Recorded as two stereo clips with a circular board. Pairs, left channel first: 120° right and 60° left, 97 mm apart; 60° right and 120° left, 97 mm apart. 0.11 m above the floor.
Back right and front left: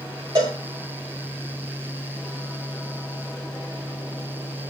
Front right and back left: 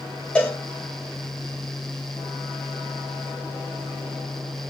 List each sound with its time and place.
0.3 s a cowbell: 15° left, 4 m